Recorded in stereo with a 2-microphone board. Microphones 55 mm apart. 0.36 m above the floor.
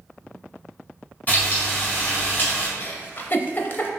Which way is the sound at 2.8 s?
40° left (ahead or behind).